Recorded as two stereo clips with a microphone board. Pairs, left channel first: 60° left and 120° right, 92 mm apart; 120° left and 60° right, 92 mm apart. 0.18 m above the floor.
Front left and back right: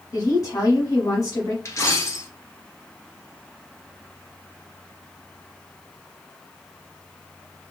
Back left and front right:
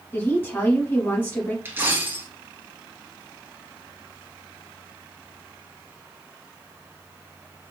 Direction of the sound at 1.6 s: 5° left.